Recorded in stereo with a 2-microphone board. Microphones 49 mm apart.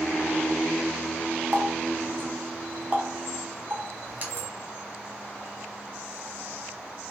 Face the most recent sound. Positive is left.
turn(degrees=-35)  # may be behind; listen again after turning